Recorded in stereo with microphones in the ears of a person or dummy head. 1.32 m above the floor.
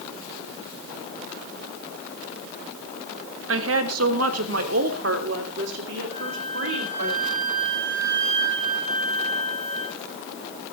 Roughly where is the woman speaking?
Right.